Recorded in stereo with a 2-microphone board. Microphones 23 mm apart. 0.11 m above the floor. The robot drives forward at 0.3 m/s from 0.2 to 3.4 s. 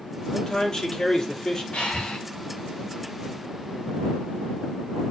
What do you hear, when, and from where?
0.3 s a man speaking: 35° left (ahead or behind), 3 m; by 1.6 s 30° left (ahead or behind), 3 m
1.7 s breathing: 60° left (ahead or behind), 4.5 m